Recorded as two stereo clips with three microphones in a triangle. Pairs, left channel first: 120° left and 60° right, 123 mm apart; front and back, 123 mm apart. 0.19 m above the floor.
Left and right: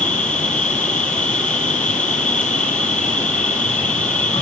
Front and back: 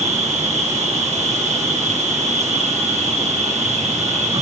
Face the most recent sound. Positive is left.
turn(degrees=-160)